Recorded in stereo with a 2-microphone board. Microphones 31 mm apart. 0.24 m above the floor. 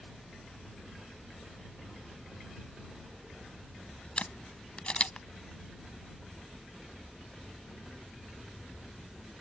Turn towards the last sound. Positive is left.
turn(degrees=40)  # may be behind; listen again after turning